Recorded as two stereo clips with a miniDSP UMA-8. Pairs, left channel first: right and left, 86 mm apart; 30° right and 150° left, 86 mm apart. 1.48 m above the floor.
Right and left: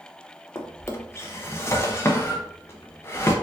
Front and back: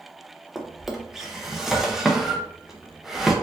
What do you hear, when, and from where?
0.6 s a drawer: 125° right, 0.6 m